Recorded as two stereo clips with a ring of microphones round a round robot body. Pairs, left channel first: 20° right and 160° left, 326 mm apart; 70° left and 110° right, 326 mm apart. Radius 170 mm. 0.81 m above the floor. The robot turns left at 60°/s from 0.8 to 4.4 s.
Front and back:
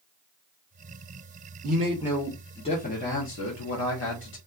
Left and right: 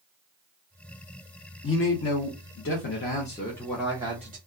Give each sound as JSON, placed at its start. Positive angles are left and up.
{"t": 1.6, "sound": "a man speaking", "azimuth_deg": 105, "distance_m": 0.9}